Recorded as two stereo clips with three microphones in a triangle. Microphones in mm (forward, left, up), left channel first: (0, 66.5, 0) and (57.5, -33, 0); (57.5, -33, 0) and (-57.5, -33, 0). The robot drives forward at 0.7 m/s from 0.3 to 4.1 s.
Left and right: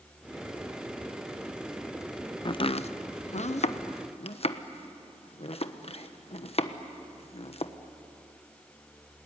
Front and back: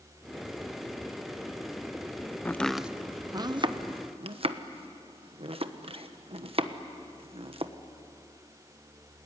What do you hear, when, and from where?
2.5 s chopping: 70° left, 0.6 m; by 7.7 s 150° left, 1.1 m